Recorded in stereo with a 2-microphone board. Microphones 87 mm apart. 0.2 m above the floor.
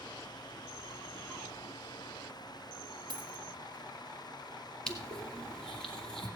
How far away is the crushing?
About 2 m.